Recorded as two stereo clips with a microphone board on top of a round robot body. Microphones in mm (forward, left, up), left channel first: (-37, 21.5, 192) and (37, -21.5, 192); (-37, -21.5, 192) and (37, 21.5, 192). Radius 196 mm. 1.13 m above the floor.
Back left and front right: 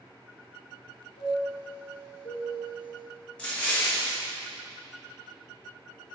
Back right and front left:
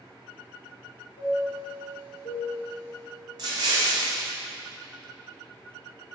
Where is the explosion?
70° left, 0.8 m.